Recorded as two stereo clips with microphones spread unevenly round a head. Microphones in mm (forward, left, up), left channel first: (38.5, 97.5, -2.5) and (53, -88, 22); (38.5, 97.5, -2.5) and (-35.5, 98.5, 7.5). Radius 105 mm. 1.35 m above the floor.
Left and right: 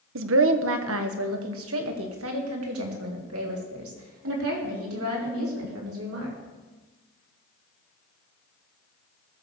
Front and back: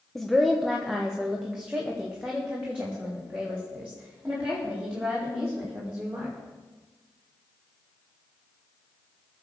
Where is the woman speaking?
85° right, 1.0 m; by 6.3 s 100° right, 5 m.